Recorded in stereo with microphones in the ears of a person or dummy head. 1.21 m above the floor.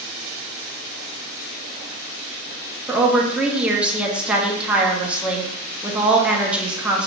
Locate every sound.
2.9 s a woman speaking: 10° right (ahead or behind), 0.8 m